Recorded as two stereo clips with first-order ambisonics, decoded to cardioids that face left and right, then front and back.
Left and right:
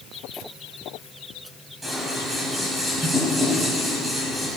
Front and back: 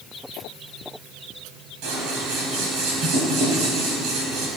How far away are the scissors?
About 3.5 m.